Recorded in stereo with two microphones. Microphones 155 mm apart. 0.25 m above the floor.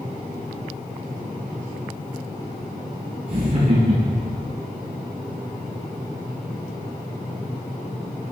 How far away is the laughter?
About 4 m.